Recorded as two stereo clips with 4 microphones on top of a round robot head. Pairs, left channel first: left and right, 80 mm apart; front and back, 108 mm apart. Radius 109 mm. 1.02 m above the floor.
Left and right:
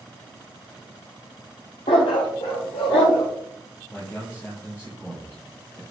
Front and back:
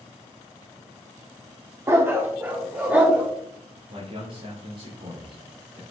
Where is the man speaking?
150° left, 3 m.